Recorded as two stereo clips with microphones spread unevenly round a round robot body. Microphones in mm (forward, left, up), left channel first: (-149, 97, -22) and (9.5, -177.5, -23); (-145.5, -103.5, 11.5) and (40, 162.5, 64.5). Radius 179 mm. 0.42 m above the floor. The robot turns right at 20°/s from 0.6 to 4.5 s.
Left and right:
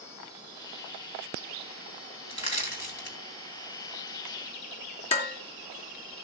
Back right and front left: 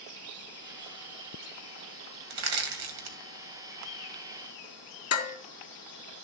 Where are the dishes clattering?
170° right, 3.5 m.